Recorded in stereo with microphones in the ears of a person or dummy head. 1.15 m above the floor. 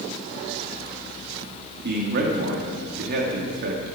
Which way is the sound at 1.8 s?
50° right (ahead or behind).